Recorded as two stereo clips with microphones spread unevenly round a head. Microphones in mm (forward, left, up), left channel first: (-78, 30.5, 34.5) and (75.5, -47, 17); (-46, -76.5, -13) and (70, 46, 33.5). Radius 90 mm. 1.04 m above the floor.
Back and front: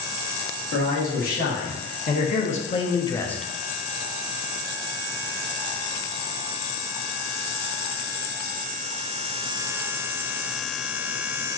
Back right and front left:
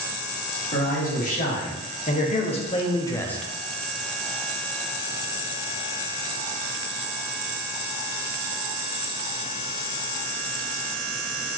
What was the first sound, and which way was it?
A man speaking, 170° right.